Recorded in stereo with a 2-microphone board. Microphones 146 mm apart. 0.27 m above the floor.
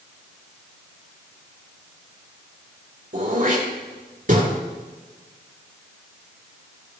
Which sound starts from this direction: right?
Throat clearing, at 3.1 s.